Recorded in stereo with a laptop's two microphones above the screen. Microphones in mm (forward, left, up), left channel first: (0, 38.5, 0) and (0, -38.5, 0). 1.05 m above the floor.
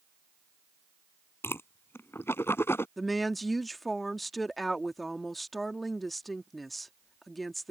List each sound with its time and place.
1.4 s a whoosh: 30° left (ahead or behind)
3.0 s a woman speaking: centre (ahead or behind)